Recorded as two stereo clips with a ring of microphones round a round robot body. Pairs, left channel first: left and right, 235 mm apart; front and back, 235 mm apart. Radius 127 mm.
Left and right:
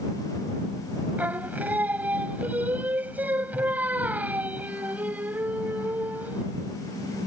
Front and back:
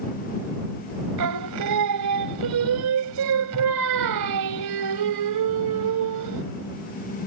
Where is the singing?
175° right.